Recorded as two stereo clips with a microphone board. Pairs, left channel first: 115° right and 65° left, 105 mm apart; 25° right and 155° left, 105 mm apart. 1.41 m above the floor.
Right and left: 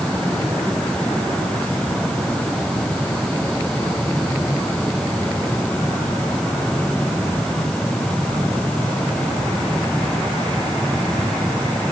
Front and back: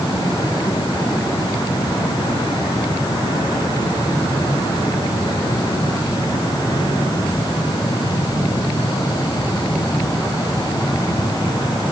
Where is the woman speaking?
No woman speaking in this recording.